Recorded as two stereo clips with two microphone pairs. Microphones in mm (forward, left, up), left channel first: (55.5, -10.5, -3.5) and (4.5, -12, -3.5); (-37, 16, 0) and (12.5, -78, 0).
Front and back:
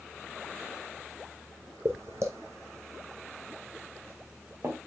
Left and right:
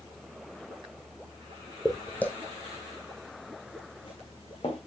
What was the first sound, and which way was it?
Footsteps, 155° right.